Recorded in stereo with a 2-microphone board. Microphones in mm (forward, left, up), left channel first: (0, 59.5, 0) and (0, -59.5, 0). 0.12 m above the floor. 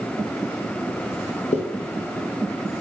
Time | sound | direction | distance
1.5 | a zipper | 70° left (ahead or behind) | 0.9 m